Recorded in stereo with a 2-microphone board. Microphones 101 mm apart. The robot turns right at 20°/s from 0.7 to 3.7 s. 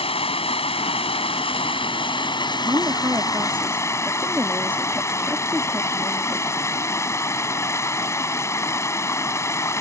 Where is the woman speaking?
40° right (ahead or behind); by 6.5 s 15° right (ahead or behind).